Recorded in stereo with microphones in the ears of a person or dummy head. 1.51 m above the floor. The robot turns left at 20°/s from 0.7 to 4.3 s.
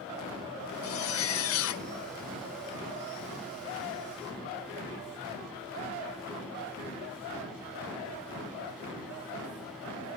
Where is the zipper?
80° left, 0.6 m; by 1.9 s 65° left (ahead or behind), 0.6 m.